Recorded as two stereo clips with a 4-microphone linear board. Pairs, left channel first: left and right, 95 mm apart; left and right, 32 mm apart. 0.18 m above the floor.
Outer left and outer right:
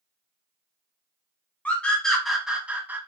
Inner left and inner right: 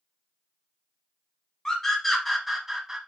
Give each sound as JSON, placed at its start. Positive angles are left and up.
{"t": 1.6, "sound": "a scream", "side_deg": 15, "distance_m": 1.1}